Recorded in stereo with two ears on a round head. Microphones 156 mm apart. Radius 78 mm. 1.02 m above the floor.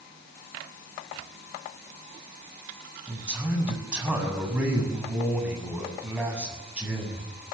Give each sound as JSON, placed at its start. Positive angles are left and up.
{"t": 3.1, "sound": "a man speaking", "side_deg": -5, "distance_m": 7.5}